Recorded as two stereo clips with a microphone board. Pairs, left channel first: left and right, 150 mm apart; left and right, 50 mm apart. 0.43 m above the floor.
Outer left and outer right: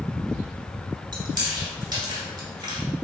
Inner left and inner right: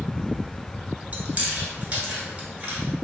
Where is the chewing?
30° right (ahead or behind), 1.1 m.